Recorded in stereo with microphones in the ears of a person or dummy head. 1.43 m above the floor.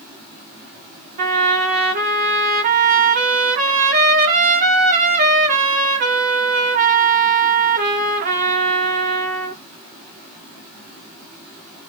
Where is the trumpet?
35° right (ahead or behind), 0.7 m.